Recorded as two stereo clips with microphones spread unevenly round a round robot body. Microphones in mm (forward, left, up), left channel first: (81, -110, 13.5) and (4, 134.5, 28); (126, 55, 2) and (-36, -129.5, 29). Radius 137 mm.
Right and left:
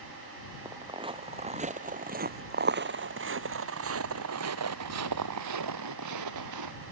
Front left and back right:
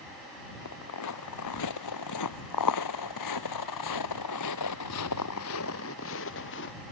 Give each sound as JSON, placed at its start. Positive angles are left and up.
{"t": 0.7, "sound": "footsteps", "azimuth_deg": 35}